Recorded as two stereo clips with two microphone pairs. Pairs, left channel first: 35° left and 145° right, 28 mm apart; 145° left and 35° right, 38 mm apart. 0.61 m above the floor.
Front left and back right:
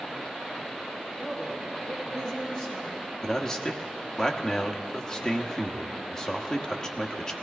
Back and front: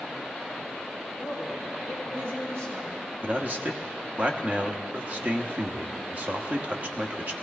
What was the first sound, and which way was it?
A man speaking, 45° right.